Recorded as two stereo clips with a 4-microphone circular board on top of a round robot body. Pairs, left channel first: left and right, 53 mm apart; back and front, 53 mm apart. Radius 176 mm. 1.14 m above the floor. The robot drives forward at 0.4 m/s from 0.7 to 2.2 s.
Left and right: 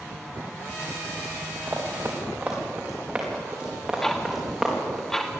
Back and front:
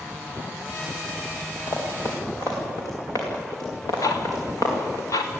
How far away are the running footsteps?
About 4.5 m.